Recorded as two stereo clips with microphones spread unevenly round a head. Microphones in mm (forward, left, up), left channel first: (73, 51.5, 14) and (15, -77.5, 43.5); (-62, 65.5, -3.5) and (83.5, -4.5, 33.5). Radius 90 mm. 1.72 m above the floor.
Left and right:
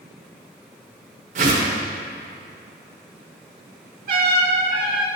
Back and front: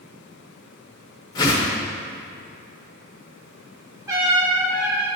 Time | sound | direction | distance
1.4 | a whoosh | 130° right | 0.9 m
4.1 | a trumpet | 95° right | 1.5 m